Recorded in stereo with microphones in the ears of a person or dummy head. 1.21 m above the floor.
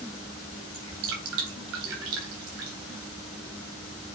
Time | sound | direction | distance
0.7 | dripping | 70° right (ahead or behind) | 3.5 m